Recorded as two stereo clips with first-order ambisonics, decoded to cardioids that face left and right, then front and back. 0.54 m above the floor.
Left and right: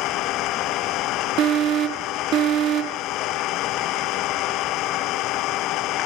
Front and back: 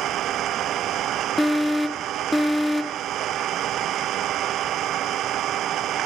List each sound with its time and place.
0.0 s an engine running: 130° left
1.4 s an alarm: 85° right